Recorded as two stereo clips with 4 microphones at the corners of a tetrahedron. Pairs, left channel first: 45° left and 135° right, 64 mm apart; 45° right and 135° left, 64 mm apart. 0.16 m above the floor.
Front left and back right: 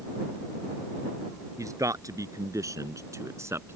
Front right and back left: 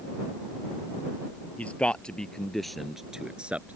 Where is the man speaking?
110° right; by 3.8 s 170° right.